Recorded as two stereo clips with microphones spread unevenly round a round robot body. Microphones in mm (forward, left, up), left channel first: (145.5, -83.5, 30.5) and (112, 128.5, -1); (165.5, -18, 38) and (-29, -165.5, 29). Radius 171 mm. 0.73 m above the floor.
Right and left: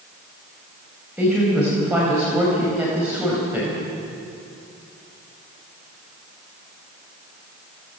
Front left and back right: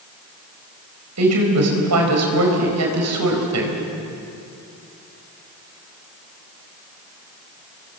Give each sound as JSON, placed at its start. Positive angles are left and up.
{"t": 1.2, "sound": "a woman speaking", "azimuth_deg": -175, "distance_m": 4.0}